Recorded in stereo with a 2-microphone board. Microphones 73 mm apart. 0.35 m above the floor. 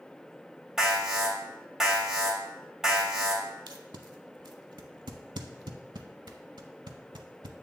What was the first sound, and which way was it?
An alarm, 10° right (ahead or behind).